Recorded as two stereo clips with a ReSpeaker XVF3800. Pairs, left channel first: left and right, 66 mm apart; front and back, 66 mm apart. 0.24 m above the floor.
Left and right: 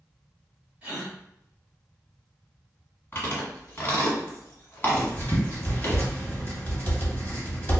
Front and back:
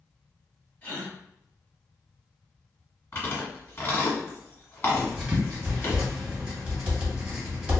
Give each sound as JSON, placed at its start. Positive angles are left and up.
{"t": 0.8, "sound": "a gasp", "azimuth_deg": -40, "distance_m": 1.5}
{"t": 3.1, "sound": "chewing", "azimuth_deg": 45, "distance_m": 1.4}
{"t": 4.9, "sound": "writing", "azimuth_deg": 120, "distance_m": 1.2}